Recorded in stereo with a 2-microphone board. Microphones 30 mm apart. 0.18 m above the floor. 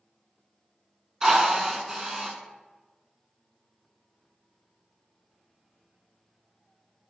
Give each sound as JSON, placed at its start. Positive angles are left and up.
{"t": 1.2, "sound": "a drill", "side_deg": -20, "distance_m": 0.6}